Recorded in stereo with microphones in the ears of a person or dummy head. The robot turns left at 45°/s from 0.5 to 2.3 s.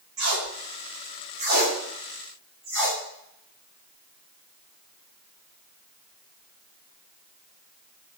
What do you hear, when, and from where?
0.2 s tape being pulled: 85° right, 1.8 m; by 3.0 s 5° right (ahead or behind), 1.8 m